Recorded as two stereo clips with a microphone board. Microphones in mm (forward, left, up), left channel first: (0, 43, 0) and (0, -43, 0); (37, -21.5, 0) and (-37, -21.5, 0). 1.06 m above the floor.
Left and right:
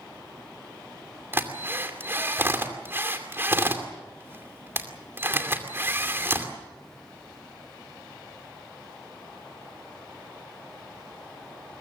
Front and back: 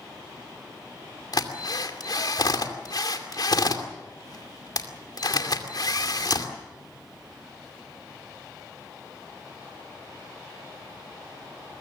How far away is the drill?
About 2.5 m.